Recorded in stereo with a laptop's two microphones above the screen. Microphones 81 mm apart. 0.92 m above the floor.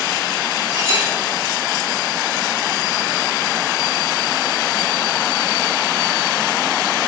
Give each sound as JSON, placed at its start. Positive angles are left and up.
{"t": 0.7, "sound": "a clink", "side_deg": -50, "distance_m": 4.5}